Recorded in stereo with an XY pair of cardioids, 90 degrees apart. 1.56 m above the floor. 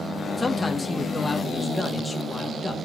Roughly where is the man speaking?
Ahead left.